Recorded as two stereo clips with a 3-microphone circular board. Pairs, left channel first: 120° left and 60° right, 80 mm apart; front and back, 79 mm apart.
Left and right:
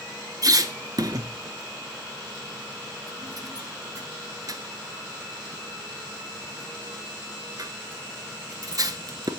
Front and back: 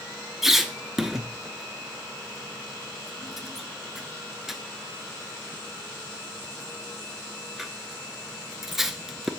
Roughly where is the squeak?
Right.